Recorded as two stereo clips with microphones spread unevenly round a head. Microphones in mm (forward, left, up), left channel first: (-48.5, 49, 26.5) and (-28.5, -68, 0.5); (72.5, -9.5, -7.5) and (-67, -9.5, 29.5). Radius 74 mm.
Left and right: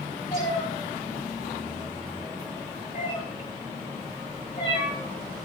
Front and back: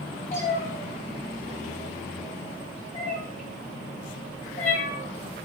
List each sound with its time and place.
0.3 s a cat meowing: 50° left, 4 m